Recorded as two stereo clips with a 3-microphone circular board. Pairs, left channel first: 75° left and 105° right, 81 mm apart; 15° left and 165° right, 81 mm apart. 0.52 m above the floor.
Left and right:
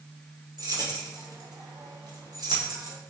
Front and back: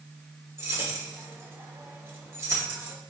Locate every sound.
0.6 s keys jangling: 120° right, 0.9 m